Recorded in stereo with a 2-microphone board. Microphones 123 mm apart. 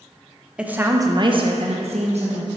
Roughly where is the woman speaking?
Centre.